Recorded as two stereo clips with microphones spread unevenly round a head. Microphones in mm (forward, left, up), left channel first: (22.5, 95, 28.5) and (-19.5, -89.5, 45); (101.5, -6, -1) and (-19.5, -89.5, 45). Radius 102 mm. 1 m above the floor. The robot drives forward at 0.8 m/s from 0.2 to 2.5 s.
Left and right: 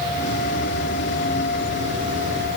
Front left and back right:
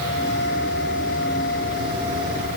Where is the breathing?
I don't hear breathing.